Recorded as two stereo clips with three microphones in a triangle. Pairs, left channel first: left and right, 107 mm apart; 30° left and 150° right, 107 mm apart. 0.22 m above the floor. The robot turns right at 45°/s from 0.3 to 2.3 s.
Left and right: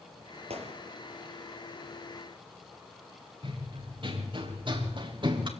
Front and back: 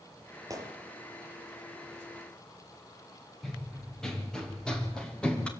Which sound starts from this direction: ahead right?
Running footsteps, at 3.4 s.